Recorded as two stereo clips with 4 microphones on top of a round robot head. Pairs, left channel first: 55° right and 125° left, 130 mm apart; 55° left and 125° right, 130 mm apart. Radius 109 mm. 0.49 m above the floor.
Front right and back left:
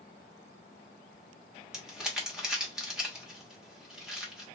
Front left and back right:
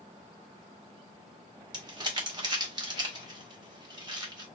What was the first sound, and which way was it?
Crumpling, 155° right.